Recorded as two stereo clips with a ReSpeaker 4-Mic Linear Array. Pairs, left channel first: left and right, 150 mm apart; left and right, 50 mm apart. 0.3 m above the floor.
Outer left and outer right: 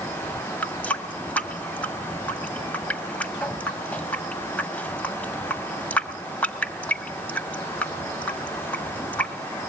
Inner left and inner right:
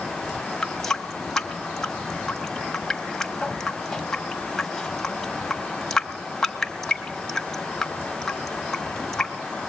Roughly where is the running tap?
Centre.